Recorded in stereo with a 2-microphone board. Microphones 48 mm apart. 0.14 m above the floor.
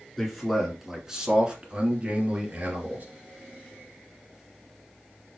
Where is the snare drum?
No snare drum in this recording.